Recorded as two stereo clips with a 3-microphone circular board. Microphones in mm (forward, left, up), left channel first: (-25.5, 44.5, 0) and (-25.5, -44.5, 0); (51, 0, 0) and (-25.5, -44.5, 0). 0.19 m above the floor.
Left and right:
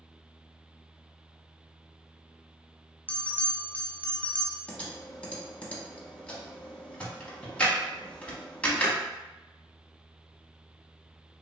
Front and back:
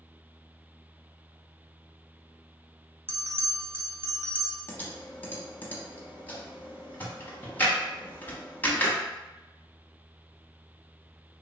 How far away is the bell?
About 0.6 m.